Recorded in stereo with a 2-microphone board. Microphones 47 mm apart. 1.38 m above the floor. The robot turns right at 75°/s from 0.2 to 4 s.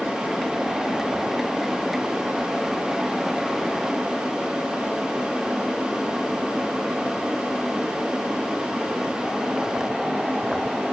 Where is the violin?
I don't hear a violin.